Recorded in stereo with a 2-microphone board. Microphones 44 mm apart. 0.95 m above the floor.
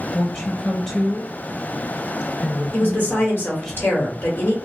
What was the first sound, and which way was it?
A woman speaking, 15° left (ahead or behind).